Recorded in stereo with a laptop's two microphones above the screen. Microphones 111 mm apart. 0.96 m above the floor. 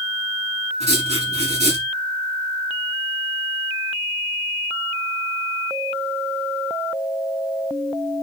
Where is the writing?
85° right, 7.5 m.